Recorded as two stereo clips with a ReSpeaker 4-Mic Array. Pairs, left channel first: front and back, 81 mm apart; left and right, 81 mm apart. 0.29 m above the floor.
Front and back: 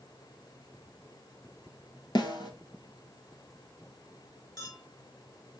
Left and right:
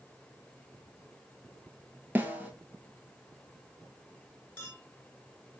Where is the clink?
25° left, 2 m.